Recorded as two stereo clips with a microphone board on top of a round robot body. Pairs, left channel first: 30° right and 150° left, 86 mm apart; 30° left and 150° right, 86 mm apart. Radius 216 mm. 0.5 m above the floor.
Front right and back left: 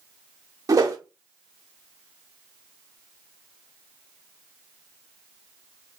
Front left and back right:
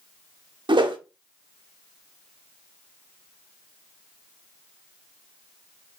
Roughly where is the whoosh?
Behind.